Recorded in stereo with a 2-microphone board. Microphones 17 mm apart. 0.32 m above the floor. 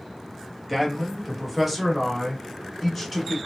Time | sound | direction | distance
0.7 | a man speaking | 10° right (ahead or behind) | 1.2 m